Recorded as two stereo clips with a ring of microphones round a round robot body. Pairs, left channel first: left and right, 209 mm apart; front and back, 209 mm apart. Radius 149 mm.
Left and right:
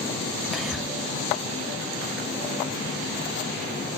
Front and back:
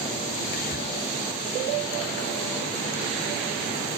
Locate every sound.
0.5 s whispering: straight ahead, 1.5 m